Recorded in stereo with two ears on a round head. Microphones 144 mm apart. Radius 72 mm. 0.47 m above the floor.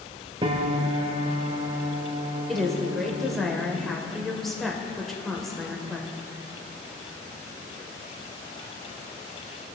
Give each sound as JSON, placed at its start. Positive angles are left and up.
{"t": 0.4, "sound": "a piano", "side_deg": -30, "distance_m": 0.6}
{"t": 2.5, "sound": "a woman speaking", "side_deg": 0, "distance_m": 1.5}